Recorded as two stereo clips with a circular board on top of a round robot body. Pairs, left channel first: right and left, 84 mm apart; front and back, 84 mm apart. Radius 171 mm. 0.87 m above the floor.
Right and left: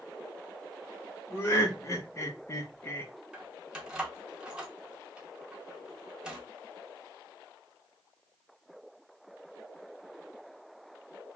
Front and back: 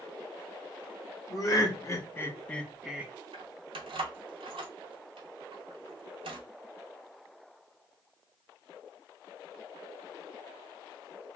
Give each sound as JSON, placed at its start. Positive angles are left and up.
{"t": 1.3, "sound": "laughter", "azimuth_deg": -35, "distance_m": 1.4}
{"t": 3.3, "sound": "keys jangling", "azimuth_deg": 170, "distance_m": 0.6}